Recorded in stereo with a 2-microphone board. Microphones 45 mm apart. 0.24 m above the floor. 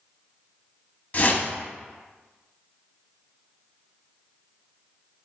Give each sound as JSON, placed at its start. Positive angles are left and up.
{"t": 1.1, "sound": "a whoosh", "side_deg": 40, "distance_m": 0.7}